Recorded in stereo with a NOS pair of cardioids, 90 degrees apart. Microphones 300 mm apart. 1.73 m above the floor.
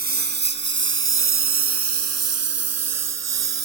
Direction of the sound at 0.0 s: 30° right.